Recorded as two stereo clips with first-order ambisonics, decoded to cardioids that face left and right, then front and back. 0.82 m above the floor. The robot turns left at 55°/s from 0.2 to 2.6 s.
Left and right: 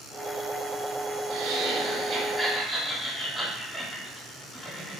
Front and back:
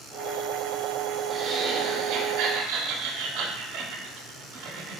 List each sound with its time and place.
1.3 s laughter: 120° right, 1.0 m; by 5.0 s 170° left, 1.0 m